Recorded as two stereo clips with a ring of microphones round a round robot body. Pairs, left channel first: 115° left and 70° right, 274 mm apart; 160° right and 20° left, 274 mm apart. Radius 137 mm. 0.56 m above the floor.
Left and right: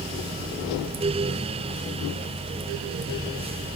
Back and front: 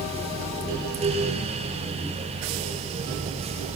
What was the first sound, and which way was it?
Only background noise.